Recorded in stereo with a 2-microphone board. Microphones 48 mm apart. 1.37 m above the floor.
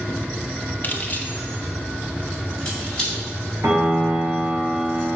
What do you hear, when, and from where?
0.8 s keys jangling: 40° left (ahead or behind), 0.7 m; by 3.2 s 20° left (ahead or behind), 2.5 m
3.6 s a piano: 60° right (ahead or behind), 2 m